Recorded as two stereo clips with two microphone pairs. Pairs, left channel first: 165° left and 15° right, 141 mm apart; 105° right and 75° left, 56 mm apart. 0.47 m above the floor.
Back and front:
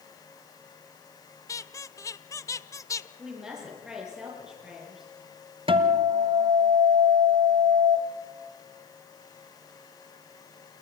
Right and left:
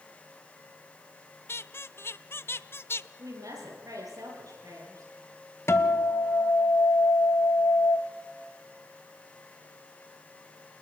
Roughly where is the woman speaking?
Left.